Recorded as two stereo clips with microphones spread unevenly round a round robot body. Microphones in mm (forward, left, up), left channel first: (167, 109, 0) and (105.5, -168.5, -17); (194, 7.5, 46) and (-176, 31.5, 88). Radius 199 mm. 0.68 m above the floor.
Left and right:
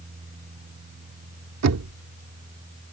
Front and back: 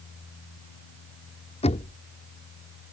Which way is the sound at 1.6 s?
75° right.